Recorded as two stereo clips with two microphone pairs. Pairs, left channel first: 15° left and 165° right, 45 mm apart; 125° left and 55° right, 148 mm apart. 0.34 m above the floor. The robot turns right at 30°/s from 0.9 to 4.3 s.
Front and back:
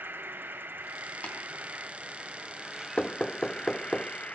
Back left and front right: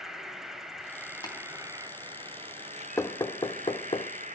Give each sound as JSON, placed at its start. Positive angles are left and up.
{"t": 0.0, "sound": "an insect", "azimuth_deg": -140, "distance_m": 1.1}
{"t": 1.2, "sound": "tapping", "azimuth_deg": 65, "distance_m": 3.5}
{"t": 3.0, "sound": "knocking", "azimuth_deg": 65, "distance_m": 0.6}